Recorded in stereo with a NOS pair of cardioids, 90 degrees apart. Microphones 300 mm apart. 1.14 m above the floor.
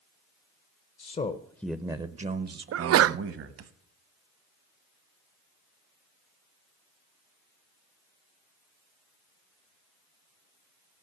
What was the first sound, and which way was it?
A man speaking, 35° left.